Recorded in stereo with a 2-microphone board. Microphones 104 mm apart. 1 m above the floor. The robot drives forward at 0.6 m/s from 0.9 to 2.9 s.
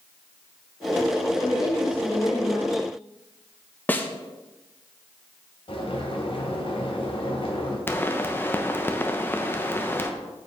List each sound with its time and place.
1.4 s a woman speaking: 35° left (ahead or behind), 4 m; by 2.9 s 40° left (ahead or behind), 3 m
3.9 s a snare drum: 15° left (ahead or behind), 0.9 m
5.7 s boiling: 60° left (ahead or behind), 3 m
7.9 s a pop: 20° left (ahead or behind), 0.9 m